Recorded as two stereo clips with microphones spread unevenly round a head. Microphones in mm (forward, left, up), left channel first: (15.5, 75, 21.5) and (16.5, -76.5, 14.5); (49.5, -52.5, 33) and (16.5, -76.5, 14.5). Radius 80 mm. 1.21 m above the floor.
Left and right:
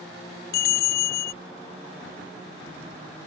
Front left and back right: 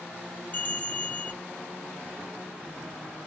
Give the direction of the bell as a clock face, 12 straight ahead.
9 o'clock.